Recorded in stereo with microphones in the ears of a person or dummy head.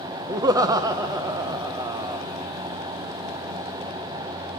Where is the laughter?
20° right (ahead or behind), 0.7 m.